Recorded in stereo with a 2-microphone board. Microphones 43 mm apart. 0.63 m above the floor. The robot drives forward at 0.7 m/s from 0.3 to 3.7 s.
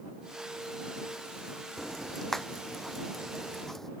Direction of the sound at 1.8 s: 5° left (ahead or behind).